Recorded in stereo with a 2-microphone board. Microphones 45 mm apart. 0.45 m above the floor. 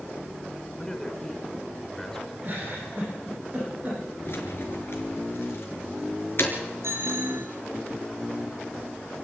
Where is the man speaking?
10° left (ahead or behind), 4.5 m.